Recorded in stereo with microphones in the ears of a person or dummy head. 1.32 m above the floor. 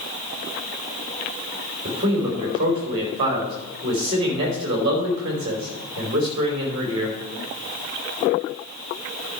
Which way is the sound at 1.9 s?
30° right (ahead or behind).